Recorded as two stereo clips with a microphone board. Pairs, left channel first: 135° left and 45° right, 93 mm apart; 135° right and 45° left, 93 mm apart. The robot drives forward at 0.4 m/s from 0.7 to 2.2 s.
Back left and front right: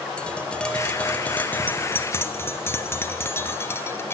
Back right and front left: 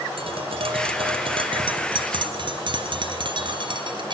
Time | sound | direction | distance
0.2 | tapping | 55° left | 2 m